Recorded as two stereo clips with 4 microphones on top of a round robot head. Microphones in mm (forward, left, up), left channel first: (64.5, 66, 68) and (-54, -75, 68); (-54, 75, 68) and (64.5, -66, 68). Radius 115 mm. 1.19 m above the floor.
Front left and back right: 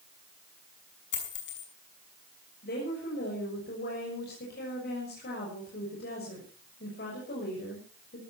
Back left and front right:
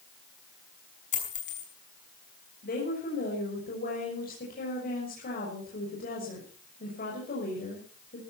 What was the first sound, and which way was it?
A dropped coin, 80° left.